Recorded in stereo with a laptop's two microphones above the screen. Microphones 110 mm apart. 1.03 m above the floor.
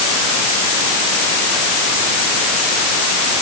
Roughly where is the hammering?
No hammering in this recording.